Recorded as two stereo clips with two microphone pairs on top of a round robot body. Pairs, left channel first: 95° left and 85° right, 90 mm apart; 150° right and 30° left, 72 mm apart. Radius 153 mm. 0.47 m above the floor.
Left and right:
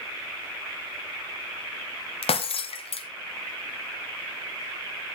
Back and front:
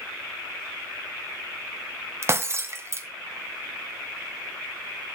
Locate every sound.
2.2 s breaking glass: 85° left, 0.8 m